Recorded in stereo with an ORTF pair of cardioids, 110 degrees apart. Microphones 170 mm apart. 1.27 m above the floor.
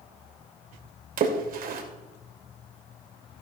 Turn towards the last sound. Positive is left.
turn(degrees=-60)